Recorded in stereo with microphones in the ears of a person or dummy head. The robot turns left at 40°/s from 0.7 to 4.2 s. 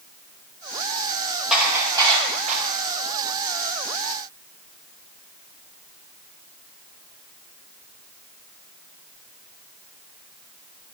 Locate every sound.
1.5 s dishes clattering: centre (ahead or behind), 4.5 m; by 2.6 s 45° right (ahead or behind), 4.5 m